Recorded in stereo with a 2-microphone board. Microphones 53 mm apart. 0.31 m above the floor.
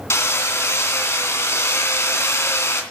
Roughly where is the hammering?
Left.